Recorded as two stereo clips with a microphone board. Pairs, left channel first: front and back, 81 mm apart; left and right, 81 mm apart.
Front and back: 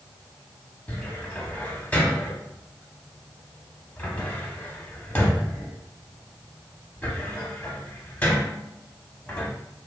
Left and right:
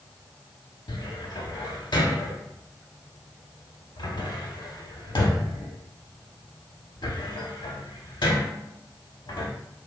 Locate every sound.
0.9 s a cupboard door: 70° left, 0.5 m